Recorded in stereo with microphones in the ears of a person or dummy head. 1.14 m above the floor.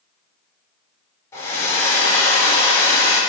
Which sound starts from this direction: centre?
A hair dryer, at 1.3 s.